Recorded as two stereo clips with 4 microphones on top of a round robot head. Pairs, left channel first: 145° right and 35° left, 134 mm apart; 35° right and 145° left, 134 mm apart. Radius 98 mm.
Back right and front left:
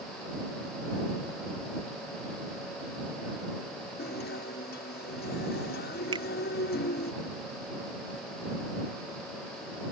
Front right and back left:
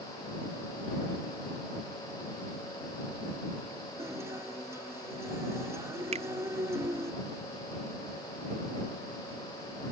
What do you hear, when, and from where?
4.0 s a guitar: 145° right
6.1 s a finger snap: 95° left